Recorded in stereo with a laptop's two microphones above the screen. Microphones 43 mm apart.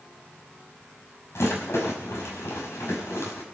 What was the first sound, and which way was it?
A rattle, 80° left.